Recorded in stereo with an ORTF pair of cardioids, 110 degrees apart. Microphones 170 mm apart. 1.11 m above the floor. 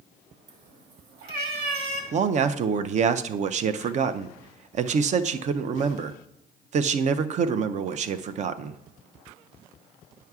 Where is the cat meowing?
50° right, 1.4 m; by 2.0 s 70° right, 1.9 m.